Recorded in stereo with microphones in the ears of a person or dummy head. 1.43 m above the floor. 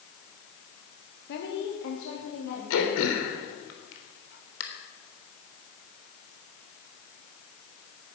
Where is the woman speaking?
60° left (ahead or behind), 2.0 m; by 3.0 s 85° left, 4 m.